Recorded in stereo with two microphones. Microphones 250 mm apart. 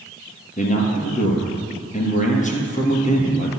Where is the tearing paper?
No tearing paper in this recording.